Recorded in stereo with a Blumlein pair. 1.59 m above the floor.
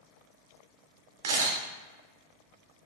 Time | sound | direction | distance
1.2 | a camera shutter | 55° right | 0.7 m